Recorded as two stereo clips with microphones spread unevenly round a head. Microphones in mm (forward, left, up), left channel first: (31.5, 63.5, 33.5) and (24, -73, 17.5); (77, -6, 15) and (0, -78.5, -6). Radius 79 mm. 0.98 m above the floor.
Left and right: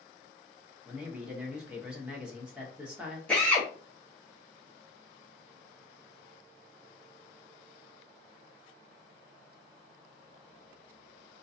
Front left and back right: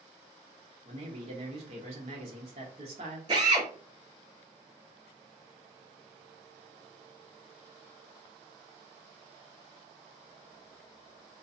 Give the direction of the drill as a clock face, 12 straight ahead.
6 o'clock.